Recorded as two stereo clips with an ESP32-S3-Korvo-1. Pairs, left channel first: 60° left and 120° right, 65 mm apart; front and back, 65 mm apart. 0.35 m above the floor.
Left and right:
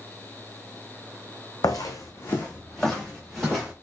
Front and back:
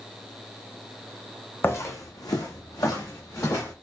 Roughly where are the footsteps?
Ahead left.